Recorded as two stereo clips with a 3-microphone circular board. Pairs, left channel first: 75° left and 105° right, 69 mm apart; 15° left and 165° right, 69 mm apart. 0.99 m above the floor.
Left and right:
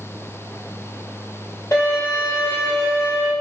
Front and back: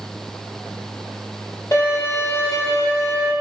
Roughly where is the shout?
I don't hear a shout.